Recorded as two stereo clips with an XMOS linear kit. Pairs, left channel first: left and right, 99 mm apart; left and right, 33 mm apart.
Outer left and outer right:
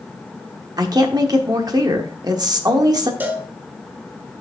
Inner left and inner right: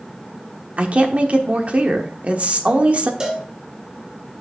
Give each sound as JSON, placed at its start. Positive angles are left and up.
{"t": 0.8, "sound": "a woman speaking", "side_deg": -45, "distance_m": 1.1}
{"t": 3.2, "sound": "a cowbell", "side_deg": -20, "distance_m": 1.5}